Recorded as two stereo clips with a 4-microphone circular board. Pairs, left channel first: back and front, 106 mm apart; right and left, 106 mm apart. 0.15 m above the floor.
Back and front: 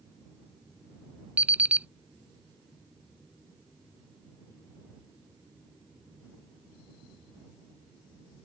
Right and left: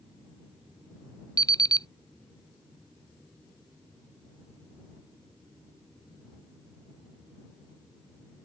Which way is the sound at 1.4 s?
70° right.